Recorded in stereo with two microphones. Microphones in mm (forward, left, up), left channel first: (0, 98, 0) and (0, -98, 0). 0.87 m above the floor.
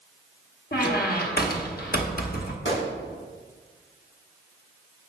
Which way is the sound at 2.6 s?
75° left (ahead or behind).